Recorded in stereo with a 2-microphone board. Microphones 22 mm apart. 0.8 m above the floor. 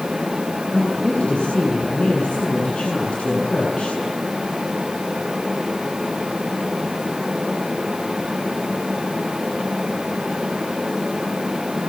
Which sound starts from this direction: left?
A woman speaking, at 0.7 s.